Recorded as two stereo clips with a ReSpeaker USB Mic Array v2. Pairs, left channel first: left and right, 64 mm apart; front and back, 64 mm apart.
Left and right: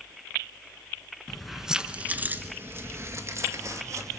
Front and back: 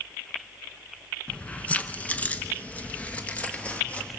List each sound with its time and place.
1.3 s keys jangling: 20° left, 0.8 m; by 4.2 s 70° right, 1.9 m